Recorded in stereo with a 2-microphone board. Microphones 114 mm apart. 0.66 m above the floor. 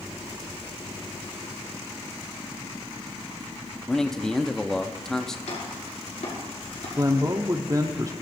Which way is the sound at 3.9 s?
5° left (ahead or behind).